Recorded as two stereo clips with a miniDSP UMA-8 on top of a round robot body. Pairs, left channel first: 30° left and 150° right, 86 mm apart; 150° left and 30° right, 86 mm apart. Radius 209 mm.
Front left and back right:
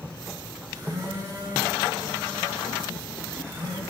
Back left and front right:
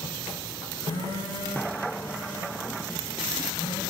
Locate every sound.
0.8 s a phone buzzing: 165° left, 4 m